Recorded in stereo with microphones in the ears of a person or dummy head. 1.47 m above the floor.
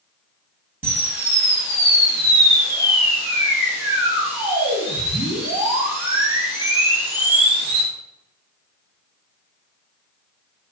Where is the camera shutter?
10° right (ahead or behind), 0.9 m.